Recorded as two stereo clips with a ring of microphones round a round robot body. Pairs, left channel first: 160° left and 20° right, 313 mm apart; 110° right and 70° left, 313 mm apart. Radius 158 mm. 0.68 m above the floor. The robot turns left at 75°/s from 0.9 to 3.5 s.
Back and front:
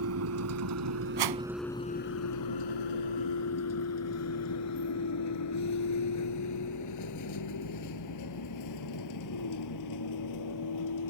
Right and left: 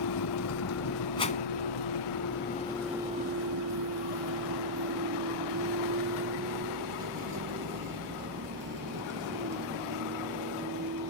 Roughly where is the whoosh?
Ahead right.